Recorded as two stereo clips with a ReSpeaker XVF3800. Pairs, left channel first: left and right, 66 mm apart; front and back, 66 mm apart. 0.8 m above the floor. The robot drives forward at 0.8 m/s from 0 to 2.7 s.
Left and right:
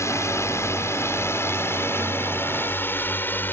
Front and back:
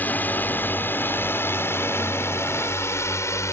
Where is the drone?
55° left; by 3.5 s 35° left.